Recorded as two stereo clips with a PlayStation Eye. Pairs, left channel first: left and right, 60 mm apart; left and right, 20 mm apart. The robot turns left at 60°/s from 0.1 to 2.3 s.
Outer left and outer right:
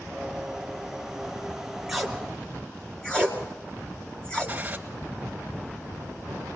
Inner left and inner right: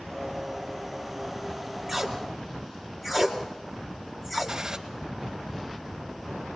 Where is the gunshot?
20° right (ahead or behind), 1.6 m.